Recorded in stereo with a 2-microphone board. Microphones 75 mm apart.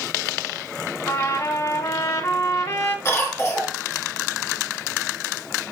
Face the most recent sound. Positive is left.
turn(degrees=35)  # may be behind; listen again after turning